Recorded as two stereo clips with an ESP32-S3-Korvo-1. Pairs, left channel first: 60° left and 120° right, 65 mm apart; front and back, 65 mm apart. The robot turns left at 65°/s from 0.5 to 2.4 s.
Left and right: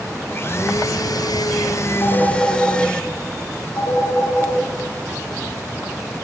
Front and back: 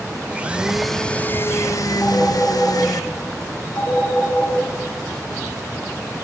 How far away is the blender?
About 0.6 m.